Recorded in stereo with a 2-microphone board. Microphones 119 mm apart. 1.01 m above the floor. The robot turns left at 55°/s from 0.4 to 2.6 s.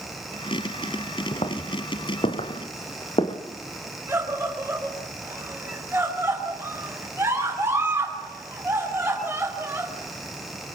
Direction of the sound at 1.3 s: 45° left (ahead or behind).